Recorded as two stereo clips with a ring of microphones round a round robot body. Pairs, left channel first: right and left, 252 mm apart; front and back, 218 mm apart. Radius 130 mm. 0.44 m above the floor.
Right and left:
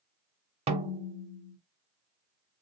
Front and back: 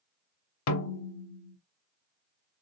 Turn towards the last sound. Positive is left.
turn(degrees=20)